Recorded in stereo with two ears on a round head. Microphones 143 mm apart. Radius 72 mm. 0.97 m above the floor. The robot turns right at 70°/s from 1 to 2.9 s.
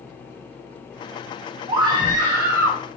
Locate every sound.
1.7 s a scream: 30° right (ahead or behind), 0.7 m; by 2.8 s 5° right (ahead or behind), 0.7 m